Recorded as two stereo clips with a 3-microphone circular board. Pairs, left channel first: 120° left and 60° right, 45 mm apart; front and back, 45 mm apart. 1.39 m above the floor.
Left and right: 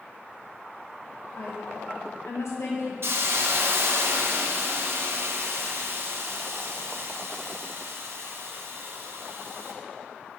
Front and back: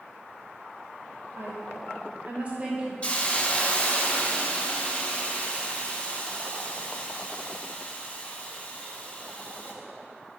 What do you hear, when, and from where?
1.4 s a woman speaking: 145° left, 1.6 m; by 2.9 s 110° left, 1.6 m
3.0 s a hiss: 60° right, 0.8 m